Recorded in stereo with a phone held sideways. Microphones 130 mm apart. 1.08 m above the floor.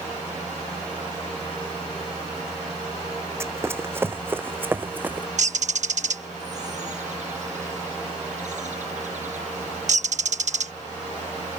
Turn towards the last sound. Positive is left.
turn(degrees=-65)  # may be behind; listen again after turning